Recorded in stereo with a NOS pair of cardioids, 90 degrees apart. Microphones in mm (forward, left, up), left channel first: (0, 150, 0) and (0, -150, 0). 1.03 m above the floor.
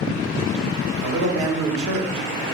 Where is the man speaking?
70° right, 2.5 m.